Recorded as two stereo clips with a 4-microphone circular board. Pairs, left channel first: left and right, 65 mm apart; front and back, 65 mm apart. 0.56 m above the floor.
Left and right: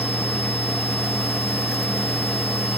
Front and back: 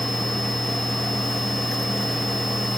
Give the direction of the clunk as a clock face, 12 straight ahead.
No clunk in this recording.